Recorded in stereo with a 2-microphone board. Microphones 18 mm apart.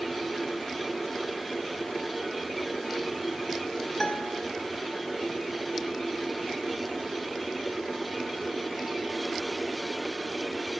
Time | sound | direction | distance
4.0 | a guitar | 30° left (ahead or behind) | 0.8 m